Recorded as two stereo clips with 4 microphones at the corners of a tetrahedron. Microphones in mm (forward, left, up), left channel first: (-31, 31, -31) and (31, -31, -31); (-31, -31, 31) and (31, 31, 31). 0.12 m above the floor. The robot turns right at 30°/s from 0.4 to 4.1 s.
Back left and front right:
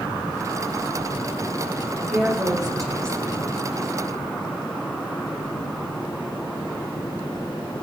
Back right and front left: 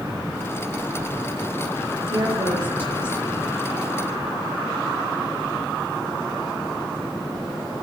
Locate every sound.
2.1 s a woman speaking: 25° left, 4.5 m; by 3.5 s 65° left, 4.5 m